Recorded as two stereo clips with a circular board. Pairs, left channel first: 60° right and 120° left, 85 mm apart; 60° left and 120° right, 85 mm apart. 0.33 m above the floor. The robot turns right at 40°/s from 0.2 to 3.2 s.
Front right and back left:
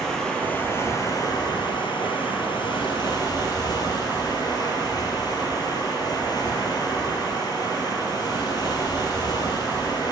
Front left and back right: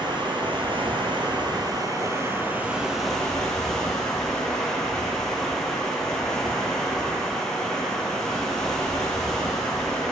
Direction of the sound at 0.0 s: 145° right.